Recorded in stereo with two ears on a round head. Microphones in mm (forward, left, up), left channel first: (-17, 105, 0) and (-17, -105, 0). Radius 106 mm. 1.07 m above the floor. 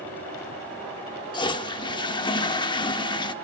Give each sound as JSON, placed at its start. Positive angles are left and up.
{"t": 1.3, "sound": "a toilet flushing", "side_deg": 20, "distance_m": 0.7}